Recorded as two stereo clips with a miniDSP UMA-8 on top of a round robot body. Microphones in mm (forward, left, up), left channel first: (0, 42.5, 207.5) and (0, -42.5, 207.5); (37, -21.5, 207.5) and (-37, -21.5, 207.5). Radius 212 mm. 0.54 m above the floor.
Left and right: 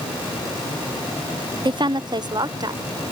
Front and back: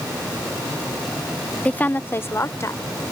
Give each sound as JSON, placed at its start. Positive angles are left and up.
{"t": 1.6, "sound": "a woman speaking", "azimuth_deg": -70}